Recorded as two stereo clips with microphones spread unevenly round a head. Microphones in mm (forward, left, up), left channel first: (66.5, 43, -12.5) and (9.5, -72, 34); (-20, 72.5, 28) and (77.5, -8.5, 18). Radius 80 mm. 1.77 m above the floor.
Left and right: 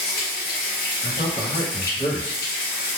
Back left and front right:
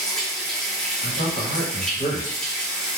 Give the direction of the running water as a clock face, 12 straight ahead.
10 o'clock.